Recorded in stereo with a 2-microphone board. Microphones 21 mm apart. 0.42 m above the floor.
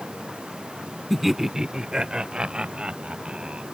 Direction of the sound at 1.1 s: Centre (ahead or behind).